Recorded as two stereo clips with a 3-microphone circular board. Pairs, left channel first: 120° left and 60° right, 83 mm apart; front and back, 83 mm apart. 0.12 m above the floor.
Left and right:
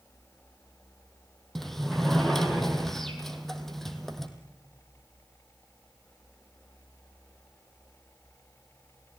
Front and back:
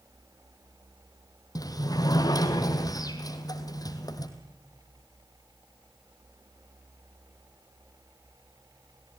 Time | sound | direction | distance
1.6 | a sliding door | 35° left | 2.5 m